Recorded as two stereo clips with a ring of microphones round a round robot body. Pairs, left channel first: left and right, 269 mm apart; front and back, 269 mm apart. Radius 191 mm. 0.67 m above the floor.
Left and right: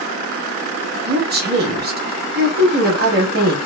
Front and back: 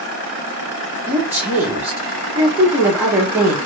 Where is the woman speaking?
100° right, 0.8 m.